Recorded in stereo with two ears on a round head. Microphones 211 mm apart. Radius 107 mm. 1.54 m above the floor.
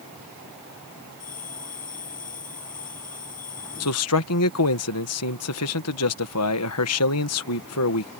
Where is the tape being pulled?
I don't hear tape being pulled.